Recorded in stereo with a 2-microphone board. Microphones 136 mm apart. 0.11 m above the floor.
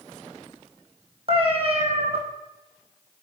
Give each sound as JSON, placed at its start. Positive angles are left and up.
{"t": 1.3, "sound": "a cat meowing", "side_deg": -45, "distance_m": 1.3}